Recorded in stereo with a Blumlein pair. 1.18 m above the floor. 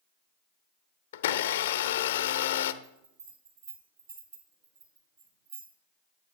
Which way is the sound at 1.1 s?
60° left.